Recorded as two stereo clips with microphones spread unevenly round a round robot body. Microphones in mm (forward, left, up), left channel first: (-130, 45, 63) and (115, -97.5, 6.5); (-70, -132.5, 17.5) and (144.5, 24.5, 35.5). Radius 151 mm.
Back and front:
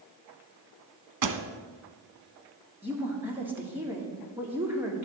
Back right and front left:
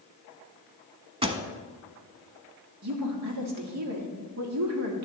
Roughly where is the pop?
Ahead right.